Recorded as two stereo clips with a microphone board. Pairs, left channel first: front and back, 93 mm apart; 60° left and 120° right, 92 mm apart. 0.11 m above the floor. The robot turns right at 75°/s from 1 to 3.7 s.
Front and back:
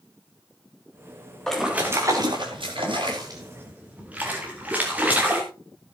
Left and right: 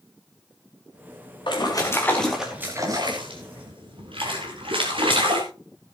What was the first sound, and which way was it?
A splash, 85° left.